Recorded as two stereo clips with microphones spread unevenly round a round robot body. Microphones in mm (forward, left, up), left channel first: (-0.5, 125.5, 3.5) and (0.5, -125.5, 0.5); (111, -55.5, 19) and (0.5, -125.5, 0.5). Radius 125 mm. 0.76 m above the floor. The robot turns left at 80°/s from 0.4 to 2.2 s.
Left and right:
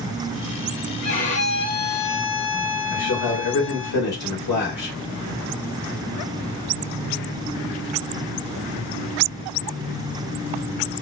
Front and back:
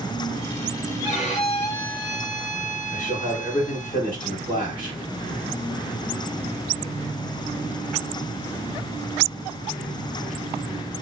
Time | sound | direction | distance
1.0 | a violin | 155° left | 1.3 m
2.9 | a man speaking | 90° left | 2.0 m